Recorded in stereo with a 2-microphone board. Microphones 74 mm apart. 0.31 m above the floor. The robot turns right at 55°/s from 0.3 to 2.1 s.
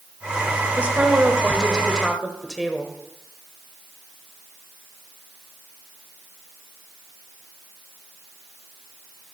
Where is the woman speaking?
15° right (ahead or behind), 1.1 m; by 2.9 s centre (ahead or behind), 1.1 m.